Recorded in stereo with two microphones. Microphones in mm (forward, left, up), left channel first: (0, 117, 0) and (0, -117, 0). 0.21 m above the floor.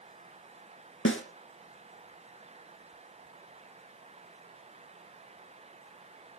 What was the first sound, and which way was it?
A snare drum, 65° left (ahead or behind).